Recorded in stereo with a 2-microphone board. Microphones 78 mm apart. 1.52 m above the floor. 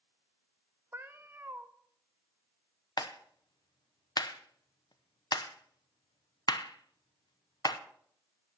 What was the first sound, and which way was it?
A cat meowing, 30° right (ahead or behind).